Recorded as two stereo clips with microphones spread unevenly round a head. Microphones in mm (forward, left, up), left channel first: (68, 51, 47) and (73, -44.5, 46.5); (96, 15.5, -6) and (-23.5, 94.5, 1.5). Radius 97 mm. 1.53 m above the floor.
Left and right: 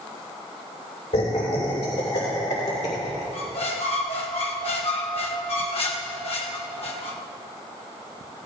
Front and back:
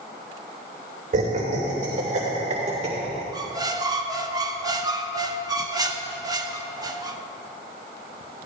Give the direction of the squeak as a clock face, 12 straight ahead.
9 o'clock.